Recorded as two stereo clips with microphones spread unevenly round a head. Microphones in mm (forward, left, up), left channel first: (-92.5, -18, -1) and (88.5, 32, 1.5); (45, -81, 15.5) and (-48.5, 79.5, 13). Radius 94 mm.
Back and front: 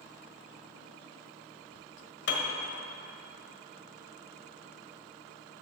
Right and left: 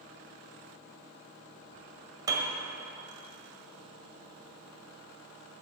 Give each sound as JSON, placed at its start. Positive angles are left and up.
{"t": 2.3, "sound": "a piano", "azimuth_deg": -170, "distance_m": 1.5}